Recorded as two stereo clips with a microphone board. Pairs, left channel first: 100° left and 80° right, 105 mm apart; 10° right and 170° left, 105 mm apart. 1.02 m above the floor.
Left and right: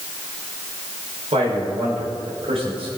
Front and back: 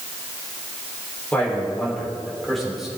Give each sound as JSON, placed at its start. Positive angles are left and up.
{"t": 1.3, "sound": "a man speaking", "azimuth_deg": -85, "distance_m": 4.5}